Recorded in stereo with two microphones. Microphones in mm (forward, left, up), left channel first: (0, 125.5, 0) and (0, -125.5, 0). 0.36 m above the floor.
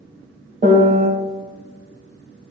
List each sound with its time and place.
0.6 s a piano: 30° right (ahead or behind), 1.7 m